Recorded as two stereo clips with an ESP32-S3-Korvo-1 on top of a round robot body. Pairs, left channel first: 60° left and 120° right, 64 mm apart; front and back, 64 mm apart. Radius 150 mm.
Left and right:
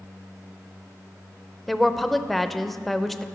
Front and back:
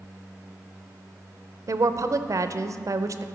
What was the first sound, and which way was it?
A woman speaking, 150° left.